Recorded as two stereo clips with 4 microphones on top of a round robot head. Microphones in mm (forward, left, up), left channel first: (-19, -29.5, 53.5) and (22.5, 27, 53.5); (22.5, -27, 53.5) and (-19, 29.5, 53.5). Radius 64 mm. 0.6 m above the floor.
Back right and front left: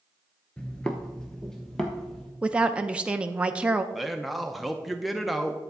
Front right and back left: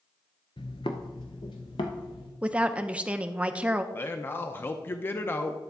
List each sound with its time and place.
0.6 s footsteps: 55° right, 0.6 m; by 2.3 s 45° right, 1.4 m
2.4 s a woman speaking: 95° left, 0.6 m
3.9 s a man speaking: 35° right, 0.7 m